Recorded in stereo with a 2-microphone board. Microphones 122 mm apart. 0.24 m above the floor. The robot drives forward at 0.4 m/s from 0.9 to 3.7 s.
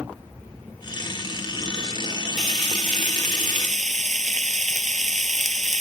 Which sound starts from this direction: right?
Frying, at 2.4 s.